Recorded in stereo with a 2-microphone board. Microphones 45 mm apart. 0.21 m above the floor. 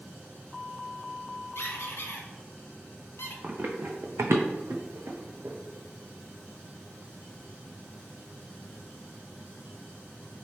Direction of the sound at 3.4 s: 35° right (ahead or behind).